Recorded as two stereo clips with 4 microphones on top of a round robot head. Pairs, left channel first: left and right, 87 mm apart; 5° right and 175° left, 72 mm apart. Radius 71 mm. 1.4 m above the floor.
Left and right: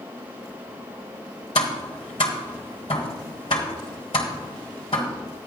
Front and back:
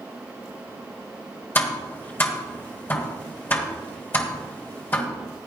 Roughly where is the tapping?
Ahead left.